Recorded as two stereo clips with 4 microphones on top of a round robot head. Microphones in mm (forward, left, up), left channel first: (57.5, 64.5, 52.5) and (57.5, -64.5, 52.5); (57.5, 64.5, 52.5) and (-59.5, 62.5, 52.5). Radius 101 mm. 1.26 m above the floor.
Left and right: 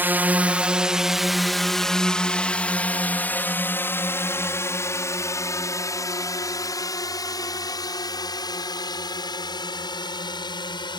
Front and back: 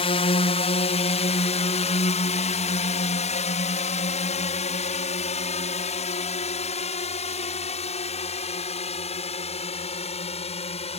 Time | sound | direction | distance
0.0 | a drone | 20° right | ?